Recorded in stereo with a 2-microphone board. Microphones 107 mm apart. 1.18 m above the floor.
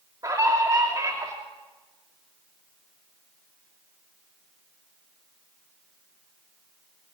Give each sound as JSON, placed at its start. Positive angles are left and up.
{"t": 0.2, "sound": "a scream", "side_deg": -35, "distance_m": 2.5}